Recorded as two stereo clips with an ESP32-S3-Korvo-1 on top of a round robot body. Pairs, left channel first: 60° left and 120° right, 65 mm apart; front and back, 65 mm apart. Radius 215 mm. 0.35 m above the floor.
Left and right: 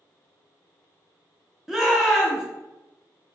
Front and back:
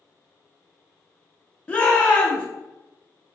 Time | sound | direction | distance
1.7 | a shout | 40° right | 0.9 m